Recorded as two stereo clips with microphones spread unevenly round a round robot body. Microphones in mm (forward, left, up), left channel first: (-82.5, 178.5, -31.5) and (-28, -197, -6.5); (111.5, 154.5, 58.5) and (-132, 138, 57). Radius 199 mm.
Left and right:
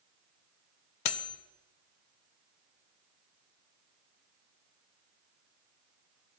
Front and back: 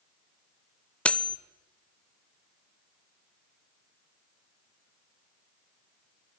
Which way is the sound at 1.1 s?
90° left.